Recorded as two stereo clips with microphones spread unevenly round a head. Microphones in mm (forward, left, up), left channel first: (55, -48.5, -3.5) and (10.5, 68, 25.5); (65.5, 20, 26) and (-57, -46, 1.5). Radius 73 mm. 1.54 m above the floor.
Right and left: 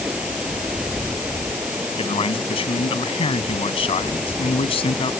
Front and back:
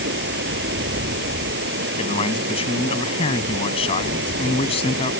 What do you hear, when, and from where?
0.0 s running water: 165° right
2.0 s a man speaking: 20° right